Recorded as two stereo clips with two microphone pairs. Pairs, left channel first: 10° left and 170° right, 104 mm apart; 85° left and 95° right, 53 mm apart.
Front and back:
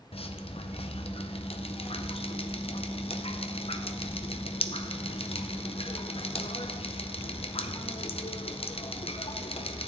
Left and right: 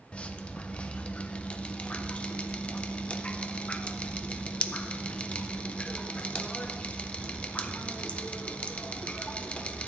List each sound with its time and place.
0.1 s dripping: 20° left, 0.6 m